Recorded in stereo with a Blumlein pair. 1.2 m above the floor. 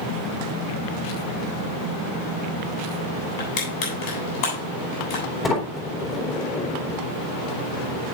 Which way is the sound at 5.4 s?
20° left.